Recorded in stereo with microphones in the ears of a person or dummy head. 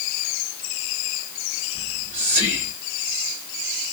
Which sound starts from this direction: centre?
Whispering, at 1.8 s.